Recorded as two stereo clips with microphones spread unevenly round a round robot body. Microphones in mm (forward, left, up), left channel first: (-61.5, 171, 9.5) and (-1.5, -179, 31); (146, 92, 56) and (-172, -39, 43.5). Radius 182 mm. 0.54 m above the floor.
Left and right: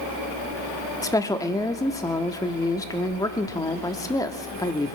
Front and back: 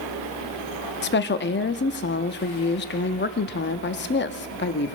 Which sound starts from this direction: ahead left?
A woman speaking, at 1.0 s.